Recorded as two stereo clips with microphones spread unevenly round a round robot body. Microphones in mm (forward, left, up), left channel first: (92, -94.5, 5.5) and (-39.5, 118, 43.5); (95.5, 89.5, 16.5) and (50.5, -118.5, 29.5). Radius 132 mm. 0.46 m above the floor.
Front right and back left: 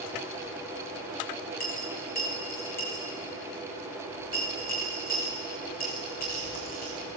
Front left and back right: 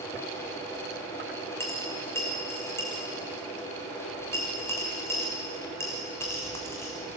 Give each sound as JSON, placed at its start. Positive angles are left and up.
{"t": 1.6, "sound": "a dropped coin", "azimuth_deg": 0, "distance_m": 3.5}